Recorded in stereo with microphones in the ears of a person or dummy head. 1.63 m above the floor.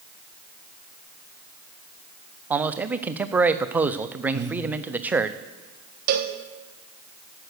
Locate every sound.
2.5 s a man speaking: 10° right (ahead or behind), 0.5 m
4.3 s breathing: 15° right (ahead or behind), 0.8 m
6.1 s a cowbell: 55° right (ahead or behind), 1.1 m